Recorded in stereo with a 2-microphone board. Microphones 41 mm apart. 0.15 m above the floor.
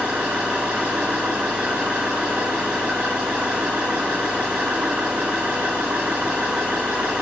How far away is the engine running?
About 3 m.